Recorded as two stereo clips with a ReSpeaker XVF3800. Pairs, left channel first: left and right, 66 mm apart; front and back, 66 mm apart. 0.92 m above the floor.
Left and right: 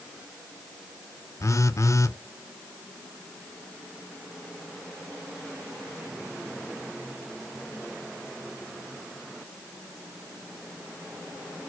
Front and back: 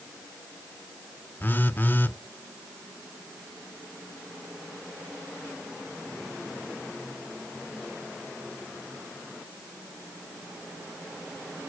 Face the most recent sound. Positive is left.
turn(degrees=55)